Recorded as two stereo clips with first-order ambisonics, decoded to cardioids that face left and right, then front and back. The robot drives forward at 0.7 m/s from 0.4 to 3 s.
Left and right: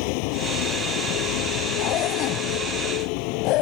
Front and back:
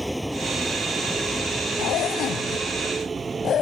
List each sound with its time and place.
0.0 s a vehicle: 90° left; by 3.6 s 105° left
1.8 s a zipper: 45° left; by 3.6 s 60° left